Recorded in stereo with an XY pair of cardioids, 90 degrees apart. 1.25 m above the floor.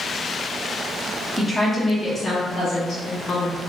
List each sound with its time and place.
1.4 s a woman speaking: 15° left, 1.3 m; by 3.6 s 70° left, 1.3 m